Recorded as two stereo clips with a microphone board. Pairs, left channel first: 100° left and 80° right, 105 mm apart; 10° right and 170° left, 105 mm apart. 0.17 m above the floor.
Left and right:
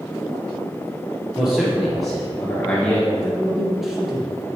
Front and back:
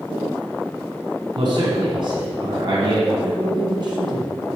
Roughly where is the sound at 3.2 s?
Behind.